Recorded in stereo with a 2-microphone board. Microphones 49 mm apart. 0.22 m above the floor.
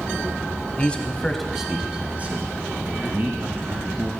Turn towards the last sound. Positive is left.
turn(degrees=-55)  # may be behind; listen again after turning